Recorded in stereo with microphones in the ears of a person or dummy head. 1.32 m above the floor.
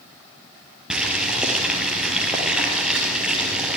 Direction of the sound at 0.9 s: 5° right (ahead or behind).